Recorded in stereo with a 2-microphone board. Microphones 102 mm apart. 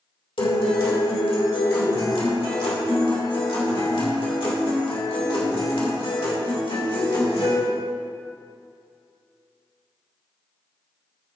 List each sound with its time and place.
0.4 s a guitar: 65° left (ahead or behind), 2.5 m